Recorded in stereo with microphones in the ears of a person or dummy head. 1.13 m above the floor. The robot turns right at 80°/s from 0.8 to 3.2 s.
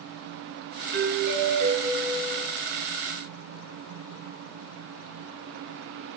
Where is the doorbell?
105° right, 0.9 m; by 2.5 s 20° left, 0.9 m.